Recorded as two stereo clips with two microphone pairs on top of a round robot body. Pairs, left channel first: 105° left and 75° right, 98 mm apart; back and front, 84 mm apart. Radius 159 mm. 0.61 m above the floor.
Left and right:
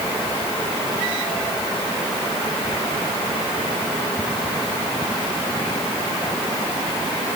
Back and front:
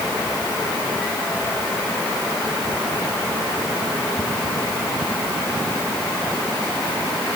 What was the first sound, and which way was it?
Only background noise.